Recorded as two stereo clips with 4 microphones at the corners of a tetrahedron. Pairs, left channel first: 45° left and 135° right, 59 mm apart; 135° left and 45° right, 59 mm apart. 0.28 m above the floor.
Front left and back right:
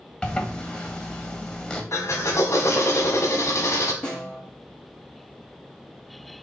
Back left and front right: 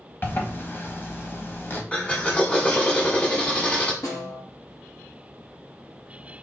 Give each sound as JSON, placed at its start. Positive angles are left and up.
{"t": 0.2, "sound": "a zipper", "azimuth_deg": 110, "distance_m": 1.1}
{"t": 1.9, "sound": "a drill", "azimuth_deg": 70, "distance_m": 1.2}
{"t": 4.0, "sound": "a snare drum", "azimuth_deg": 115, "distance_m": 3.5}